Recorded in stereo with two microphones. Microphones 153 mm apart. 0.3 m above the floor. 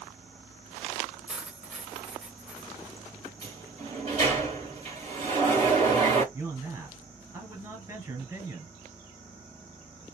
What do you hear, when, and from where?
1.3 s cutlery clinking: 5° right (ahead or behind), 0.8 m
3.4 s a sliding door: 45° right (ahead or behind), 2 m
6.3 s a man speaking: 25° right (ahead or behind), 1.7 m